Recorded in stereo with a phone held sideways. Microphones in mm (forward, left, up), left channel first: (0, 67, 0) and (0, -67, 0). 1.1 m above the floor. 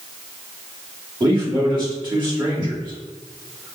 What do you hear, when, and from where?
1.2 s a man speaking: 35° right (ahead or behind), 2.0 m